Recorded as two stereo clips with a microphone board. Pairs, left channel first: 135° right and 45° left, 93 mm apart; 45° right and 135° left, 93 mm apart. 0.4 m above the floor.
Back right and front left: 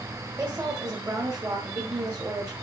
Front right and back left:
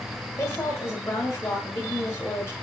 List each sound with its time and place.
0.4 s a woman speaking: 5° left, 1.3 m